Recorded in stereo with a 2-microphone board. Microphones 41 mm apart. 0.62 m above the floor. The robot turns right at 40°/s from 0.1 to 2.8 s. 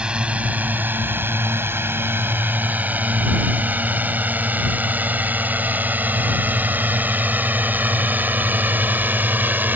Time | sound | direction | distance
0.0 | a drone | 25° right (ahead or behind) | ?